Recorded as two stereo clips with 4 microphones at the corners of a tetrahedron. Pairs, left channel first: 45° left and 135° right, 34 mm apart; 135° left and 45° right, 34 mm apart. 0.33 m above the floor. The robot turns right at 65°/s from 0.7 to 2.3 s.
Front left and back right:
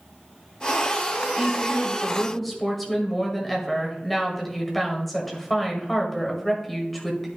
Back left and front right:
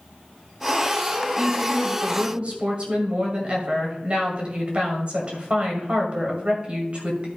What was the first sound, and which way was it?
A woman speaking, 100° right.